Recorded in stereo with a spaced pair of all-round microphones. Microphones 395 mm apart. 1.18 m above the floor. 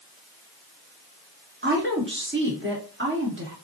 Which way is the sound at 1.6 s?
30° right (ahead or behind).